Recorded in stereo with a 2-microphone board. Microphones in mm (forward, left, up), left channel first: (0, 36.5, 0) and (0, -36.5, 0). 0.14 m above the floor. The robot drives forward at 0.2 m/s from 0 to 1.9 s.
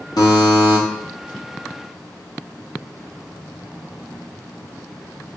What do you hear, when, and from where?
0.2 s a buzzer: 65° left (ahead or behind), 3 m